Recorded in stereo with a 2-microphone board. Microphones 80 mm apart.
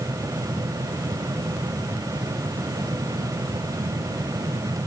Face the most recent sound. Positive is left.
No sound to turn to.